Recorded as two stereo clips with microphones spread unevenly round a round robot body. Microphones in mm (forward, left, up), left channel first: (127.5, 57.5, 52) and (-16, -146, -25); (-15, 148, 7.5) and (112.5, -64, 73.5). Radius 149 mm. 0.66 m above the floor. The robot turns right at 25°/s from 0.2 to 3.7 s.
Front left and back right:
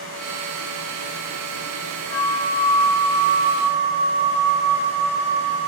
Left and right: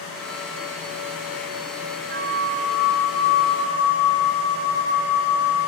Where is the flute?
30° right, 6 m; by 5.7 s 10° left, 6 m.